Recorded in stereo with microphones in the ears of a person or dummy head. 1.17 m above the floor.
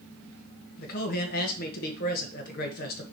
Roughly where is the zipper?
I don't hear a zipper.